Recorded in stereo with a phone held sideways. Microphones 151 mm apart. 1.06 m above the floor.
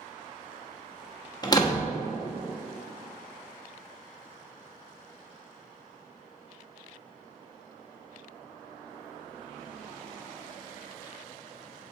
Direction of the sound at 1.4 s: 25° left (ahead or behind).